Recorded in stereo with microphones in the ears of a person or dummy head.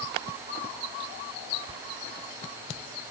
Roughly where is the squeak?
Right.